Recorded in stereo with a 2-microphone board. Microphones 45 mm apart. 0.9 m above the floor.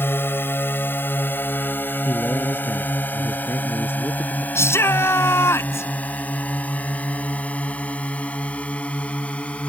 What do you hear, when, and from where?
0.0 s a drone: 55° left (ahead or behind); by 9.7 s 25° left (ahead or behind)
2.0 s a man speaking: 60° left (ahead or behind)
4.5 s a shout: 85° left